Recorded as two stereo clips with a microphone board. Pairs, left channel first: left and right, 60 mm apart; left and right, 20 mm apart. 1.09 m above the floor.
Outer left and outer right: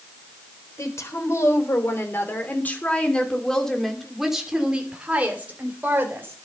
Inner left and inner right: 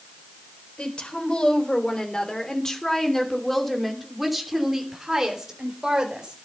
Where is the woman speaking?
55° left (ahead or behind), 4 m; by 6.3 s 40° right (ahead or behind), 4 m.